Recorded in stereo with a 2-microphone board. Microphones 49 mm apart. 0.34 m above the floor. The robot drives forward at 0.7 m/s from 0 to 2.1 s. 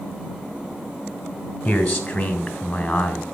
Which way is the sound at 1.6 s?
15° left (ahead or behind).